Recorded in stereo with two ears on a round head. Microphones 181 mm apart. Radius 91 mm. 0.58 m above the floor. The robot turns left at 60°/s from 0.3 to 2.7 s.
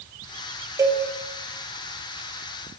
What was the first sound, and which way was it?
A cowbell, 15° right (ahead or behind).